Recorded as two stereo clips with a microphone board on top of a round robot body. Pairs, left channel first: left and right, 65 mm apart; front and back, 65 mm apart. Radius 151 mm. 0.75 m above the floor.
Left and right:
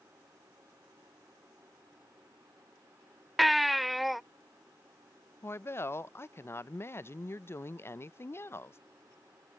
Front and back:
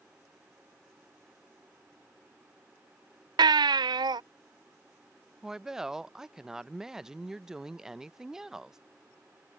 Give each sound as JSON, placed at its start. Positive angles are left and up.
{"t": 3.4, "sound": "a baby crying", "azimuth_deg": 180}
{"t": 5.4, "sound": "a woman speaking", "azimuth_deg": 105}